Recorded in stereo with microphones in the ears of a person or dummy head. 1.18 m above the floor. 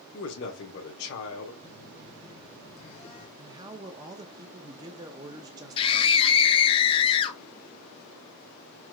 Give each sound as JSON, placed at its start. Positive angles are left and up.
{"t": 0.1, "sound": "a man speaking", "side_deg": 55, "distance_m": 1.1}
{"t": 1.6, "sound": "a phone buzzing", "side_deg": 30, "distance_m": 1.3}
{"t": 3.4, "sound": "a man speaking", "side_deg": -20, "distance_m": 0.6}
{"t": 5.8, "sound": "a scream", "side_deg": 25, "distance_m": 0.8}